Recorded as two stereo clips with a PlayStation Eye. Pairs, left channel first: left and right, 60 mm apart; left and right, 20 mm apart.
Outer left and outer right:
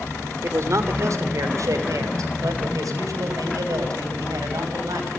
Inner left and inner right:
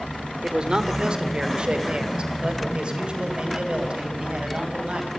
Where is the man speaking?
55° right (ahead or behind), 3 m; by 5.1 s 80° right, 6.5 m.